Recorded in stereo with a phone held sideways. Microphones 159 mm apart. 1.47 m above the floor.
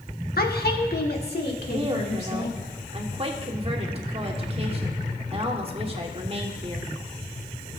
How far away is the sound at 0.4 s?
About 1.1 m.